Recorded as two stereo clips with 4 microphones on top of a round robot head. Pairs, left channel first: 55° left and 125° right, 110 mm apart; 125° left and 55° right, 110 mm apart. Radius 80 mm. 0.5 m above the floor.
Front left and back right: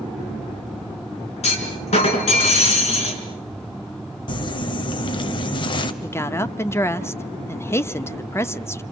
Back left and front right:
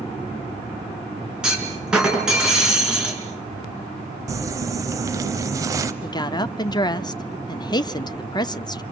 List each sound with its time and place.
1.4 s a clunk: 30° left, 4 m
4.3 s crumpling: 5° left, 1.1 m
6.0 s a woman speaking: 110° left, 0.9 m